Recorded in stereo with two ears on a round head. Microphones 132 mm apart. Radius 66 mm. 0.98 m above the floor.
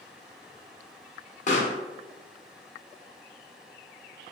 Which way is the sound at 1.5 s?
55° left (ahead or behind).